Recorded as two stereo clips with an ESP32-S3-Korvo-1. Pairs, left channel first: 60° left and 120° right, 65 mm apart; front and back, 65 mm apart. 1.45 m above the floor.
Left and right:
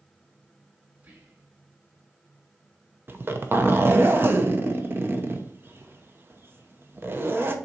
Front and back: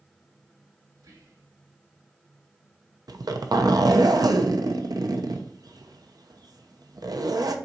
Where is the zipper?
175° right, 0.8 m.